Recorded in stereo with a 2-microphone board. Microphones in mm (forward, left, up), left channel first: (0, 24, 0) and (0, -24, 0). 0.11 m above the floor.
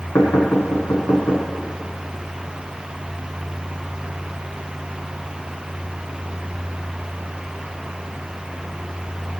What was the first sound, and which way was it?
Knocking, 75° left (ahead or behind).